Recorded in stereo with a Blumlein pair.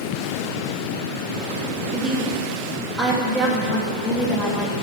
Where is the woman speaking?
5° left, 2.5 m.